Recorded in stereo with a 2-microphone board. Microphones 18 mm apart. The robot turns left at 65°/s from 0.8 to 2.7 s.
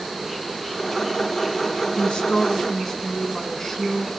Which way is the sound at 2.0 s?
85° left.